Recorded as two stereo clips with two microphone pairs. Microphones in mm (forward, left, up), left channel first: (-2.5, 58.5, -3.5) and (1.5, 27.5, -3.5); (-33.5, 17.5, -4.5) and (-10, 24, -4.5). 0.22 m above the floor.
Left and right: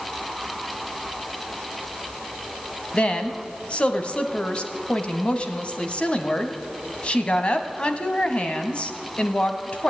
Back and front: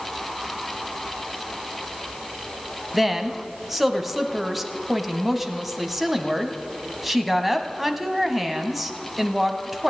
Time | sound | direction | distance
2.9 | a woman speaking | 95° left | 1.3 m